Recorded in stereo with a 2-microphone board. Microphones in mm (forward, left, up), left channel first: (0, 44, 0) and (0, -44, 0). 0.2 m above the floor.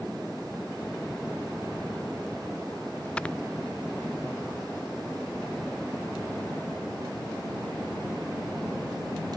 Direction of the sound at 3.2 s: 10° left (ahead or behind).